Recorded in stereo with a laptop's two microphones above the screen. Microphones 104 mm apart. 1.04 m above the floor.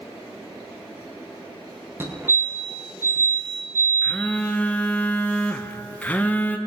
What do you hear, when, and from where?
2.0 s a fire alarm: 20° right (ahead or behind), 1.5 m
4.0 s a phone buzzing: 15° left (ahead or behind), 0.6 m